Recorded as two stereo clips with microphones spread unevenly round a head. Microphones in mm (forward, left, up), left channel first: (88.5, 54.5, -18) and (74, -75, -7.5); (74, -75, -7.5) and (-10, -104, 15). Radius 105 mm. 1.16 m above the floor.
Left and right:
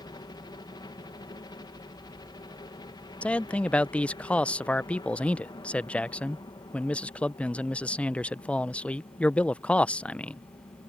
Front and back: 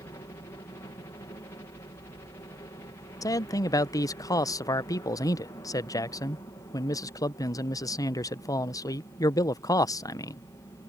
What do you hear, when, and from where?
0.0 s a helicopter: 50° left
3.2 s a man speaking: 10° left